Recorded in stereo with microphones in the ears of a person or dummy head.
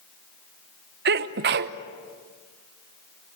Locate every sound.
1.1 s a sneeze: 55° right (ahead or behind), 1.0 m